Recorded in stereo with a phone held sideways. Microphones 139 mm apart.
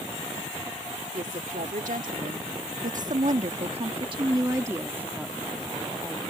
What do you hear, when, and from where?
1.1 s a woman speaking: 75° right (ahead or behind); by 6.2 s 5° left (ahead or behind)